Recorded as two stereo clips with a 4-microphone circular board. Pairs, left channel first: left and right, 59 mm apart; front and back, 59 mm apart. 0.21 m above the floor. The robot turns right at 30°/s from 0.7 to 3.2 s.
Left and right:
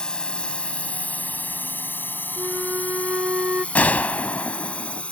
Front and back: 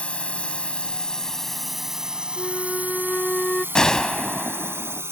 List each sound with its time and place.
0.0 s a drone: 40° left; by 5.1 s 155° left
2.4 s a flute: 95° right; by 3.6 s 70° right
3.8 s a gunshot: 70° left